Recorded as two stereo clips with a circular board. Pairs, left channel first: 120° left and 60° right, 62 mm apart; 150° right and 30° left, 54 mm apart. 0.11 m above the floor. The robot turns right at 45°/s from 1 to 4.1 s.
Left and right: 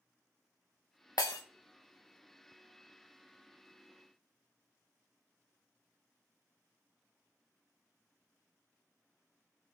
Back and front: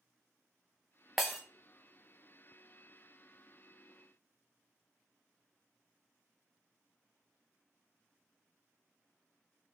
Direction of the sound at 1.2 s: 115° left.